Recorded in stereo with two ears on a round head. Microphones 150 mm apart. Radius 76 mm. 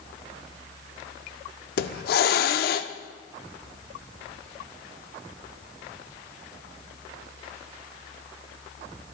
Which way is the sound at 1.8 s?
60° left (ahead or behind).